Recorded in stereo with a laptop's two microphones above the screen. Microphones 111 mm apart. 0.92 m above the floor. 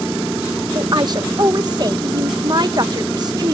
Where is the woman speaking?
40° right (ahead or behind).